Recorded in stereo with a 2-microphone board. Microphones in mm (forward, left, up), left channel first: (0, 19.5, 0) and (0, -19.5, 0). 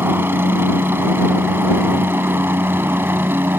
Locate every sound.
0.0 s a helicopter: 65° right (ahead or behind)